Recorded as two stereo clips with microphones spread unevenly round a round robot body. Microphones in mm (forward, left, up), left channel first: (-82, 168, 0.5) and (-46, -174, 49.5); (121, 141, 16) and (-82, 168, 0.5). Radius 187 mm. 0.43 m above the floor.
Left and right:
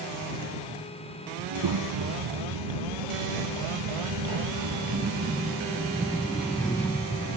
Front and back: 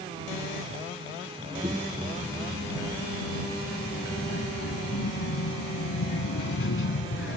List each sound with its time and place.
1.4 s a child speaking: 110° right; by 7.4 s 15° left